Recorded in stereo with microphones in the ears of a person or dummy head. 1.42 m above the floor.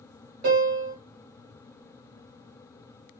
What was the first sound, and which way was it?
A piano, 50° right (ahead or behind).